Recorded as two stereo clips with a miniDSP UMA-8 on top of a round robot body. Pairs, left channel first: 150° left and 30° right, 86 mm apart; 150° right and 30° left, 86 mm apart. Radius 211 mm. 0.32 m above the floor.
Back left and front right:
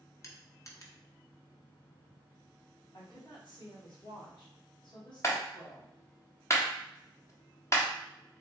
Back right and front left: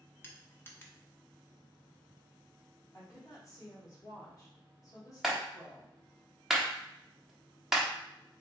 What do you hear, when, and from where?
0.2 s crushing: 160° left, 1.4 m
2.9 s a woman speaking: 160° left, 2 m
5.2 s a clap: 115° left, 1.4 m